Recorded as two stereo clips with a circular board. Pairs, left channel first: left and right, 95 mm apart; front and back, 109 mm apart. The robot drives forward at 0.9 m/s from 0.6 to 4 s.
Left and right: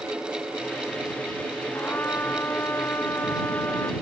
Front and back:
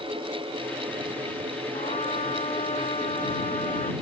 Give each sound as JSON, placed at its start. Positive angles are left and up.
{"t": 1.7, "sound": "a trumpet", "azimuth_deg": 20}